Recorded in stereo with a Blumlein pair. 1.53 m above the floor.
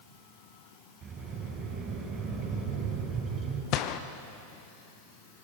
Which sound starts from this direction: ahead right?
A sliding door, at 1.0 s.